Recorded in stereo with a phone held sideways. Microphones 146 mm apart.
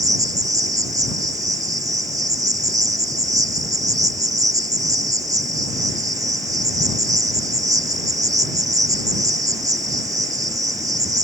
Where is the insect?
25° right (ahead or behind).